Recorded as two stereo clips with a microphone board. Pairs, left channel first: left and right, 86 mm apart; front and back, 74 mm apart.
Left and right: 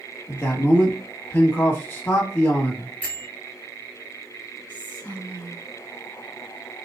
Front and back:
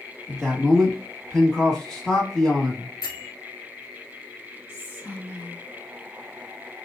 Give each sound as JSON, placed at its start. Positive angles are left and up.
{"t": 0.3, "sound": "a man speaking", "azimuth_deg": 70, "distance_m": 1.1}
{"t": 3.0, "sound": "a bell", "azimuth_deg": 15, "distance_m": 1.2}
{"t": 4.7, "sound": "whispering", "azimuth_deg": 30, "distance_m": 2.0}